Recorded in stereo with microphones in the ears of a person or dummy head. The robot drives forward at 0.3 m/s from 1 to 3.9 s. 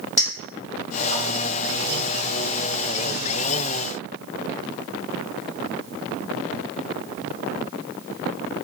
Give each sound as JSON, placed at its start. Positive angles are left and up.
{"t": 0.2, "sound": "a clink", "side_deg": 45, "distance_m": 1.5}